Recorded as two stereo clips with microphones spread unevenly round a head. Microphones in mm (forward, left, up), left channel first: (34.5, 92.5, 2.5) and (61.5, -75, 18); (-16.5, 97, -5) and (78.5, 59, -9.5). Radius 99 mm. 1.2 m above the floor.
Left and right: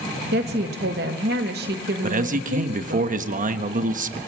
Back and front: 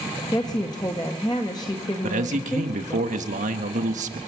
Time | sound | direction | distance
0.3 | a woman speaking | 130° right | 1.5 m
2.0 | a man speaking | 35° right | 1.3 m